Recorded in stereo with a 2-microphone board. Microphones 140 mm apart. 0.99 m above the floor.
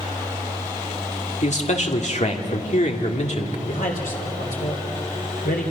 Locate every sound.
1.4 s a man speaking: 55° left (ahead or behind), 2 m
3.7 s a man speaking: 80° left, 3 m